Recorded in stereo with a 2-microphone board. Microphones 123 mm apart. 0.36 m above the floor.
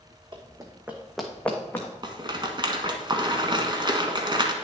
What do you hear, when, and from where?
0.3 s running footsteps: 40° right (ahead or behind), 1.2 m; by 1.9 s 20° left (ahead or behind), 1.8 m
2.0 s a rattle: 40° right (ahead or behind), 1.1 m